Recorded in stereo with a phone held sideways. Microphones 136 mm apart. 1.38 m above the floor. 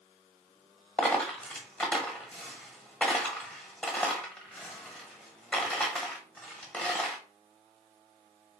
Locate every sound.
1.0 s a dropped coin: 10° left (ahead or behind), 1.2 m